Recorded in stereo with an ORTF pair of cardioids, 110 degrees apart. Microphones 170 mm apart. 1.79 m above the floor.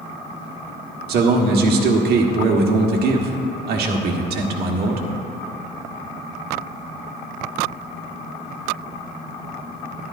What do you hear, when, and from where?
1.1 s a man speaking: 65° right, 1.6 m